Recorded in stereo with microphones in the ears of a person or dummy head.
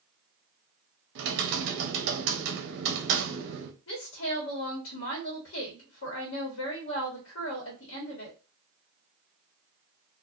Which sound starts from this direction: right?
Typing on a keyboard, at 1.1 s.